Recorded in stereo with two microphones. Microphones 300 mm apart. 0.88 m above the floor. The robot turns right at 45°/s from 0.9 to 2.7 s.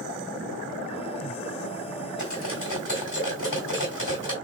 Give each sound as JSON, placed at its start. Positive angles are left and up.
{"t": 2.2, "sound": "cutlery clinking", "side_deg": 65, "distance_m": 4.5}